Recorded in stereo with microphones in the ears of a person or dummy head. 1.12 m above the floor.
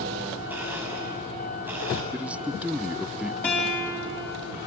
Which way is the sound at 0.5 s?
15° right (ahead or behind).